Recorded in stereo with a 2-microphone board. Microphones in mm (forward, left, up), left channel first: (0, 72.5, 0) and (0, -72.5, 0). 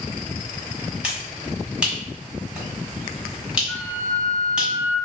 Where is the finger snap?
5° right (ahead or behind), 1.6 m.